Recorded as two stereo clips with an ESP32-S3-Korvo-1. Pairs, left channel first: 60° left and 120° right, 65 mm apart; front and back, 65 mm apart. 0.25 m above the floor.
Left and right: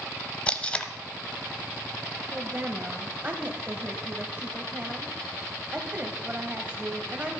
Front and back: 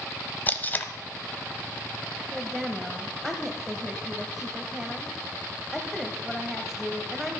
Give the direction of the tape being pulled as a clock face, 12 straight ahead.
12 o'clock.